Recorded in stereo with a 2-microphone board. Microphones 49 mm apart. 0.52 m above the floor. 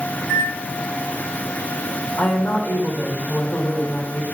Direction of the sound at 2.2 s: 40° left (ahead or behind).